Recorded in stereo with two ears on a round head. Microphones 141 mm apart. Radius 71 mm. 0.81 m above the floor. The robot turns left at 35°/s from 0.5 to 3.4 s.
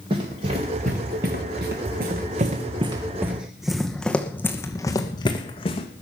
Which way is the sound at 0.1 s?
35° right (ahead or behind).